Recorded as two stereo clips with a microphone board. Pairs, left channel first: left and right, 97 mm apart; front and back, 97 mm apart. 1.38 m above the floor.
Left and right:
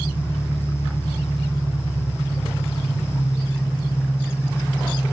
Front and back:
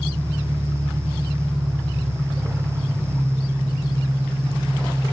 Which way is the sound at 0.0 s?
165° left.